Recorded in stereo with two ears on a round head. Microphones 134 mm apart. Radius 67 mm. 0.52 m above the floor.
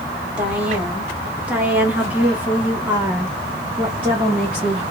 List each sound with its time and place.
0.4 s a woman speaking: 10° right (ahead or behind), 1.6 m